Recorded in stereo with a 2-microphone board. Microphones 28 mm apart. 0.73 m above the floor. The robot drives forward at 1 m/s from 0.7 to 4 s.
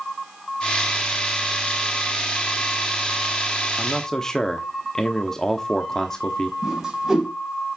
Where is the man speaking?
25° left (ahead or behind), 0.9 m; by 6.5 s 20° left (ahead or behind), 1.1 m.